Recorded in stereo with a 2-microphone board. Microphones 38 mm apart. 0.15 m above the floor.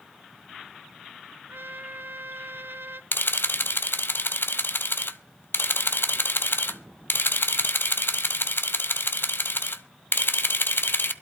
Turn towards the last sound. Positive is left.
turn(degrees=65)  # may be behind; listen again after turning